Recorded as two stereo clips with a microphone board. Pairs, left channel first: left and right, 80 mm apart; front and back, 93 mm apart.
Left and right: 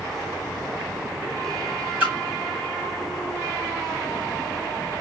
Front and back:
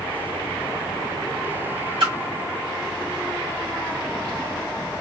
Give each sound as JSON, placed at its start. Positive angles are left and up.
{"t": 2.0, "sound": "a splash", "azimuth_deg": -160, "distance_m": 1.8}